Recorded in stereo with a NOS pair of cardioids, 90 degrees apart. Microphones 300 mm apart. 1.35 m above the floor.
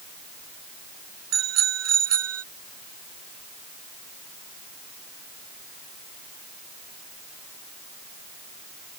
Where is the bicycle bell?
60° right; by 2.4 s 50° right.